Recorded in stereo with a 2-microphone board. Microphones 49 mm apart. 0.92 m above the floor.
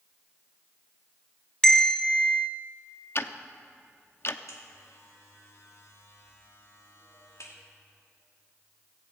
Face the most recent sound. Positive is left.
turn(degrees=70)  # may be behind; listen again after turning